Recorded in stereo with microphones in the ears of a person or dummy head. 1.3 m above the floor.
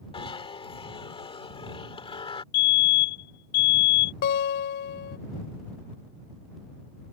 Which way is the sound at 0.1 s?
25° left (ahead or behind).